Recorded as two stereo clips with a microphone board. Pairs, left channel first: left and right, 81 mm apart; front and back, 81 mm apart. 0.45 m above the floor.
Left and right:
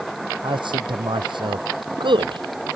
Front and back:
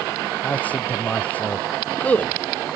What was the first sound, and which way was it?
A man speaking, 70° right.